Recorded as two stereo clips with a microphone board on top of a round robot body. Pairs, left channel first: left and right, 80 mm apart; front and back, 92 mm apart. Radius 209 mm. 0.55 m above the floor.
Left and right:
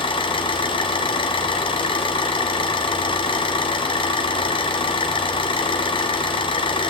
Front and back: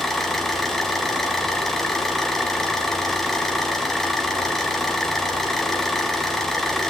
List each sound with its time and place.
0.0 s an engine running: 85° left, 1.8 m